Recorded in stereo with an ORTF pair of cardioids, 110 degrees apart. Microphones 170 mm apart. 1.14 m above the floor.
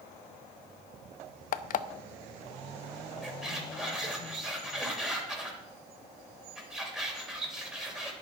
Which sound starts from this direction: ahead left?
An alarm clock, at 1.5 s.